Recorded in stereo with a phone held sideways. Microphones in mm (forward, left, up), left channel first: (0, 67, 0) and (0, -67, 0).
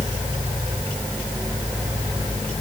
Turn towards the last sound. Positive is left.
No sound to turn to.